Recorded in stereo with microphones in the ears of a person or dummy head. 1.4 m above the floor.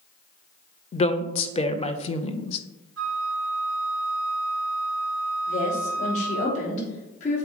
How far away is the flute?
About 1.0 m.